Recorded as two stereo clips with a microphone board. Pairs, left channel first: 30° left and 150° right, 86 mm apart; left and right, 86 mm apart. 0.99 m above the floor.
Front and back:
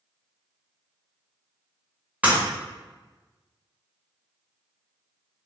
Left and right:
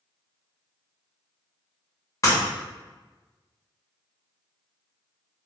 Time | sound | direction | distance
2.2 | breaking glass | 135° left | 1.5 m